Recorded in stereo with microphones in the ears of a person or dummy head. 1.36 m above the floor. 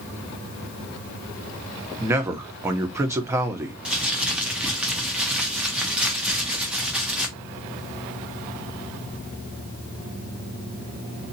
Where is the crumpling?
10° right (ahead or behind), 0.8 m.